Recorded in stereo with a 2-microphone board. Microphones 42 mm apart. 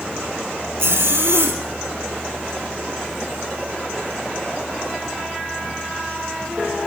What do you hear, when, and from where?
0.8 s a zipper: 70° right (ahead or behind), 2.5 m